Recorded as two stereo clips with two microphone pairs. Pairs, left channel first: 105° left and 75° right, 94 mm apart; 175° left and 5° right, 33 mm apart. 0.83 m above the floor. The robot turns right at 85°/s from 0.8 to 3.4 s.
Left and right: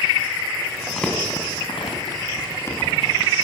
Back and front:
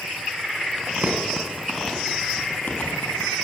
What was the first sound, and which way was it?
Crumpling, 5° left.